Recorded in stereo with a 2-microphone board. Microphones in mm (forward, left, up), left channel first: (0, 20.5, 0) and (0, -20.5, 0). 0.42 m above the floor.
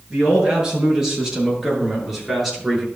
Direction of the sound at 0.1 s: 20° right (ahead or behind).